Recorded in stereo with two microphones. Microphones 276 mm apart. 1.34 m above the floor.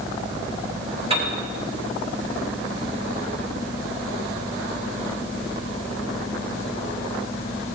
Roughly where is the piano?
Centre.